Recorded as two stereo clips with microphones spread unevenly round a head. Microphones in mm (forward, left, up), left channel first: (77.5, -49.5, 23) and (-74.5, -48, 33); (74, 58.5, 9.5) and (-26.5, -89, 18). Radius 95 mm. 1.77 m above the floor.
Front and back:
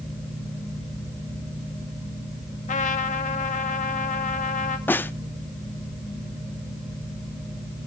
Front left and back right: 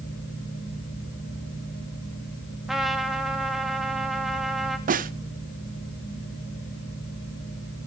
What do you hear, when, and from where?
0.0 s a fan: 95° left, 6.5 m
2.7 s a trumpet: 35° right, 1.5 m
4.9 s a snare drum: 80° right, 0.6 m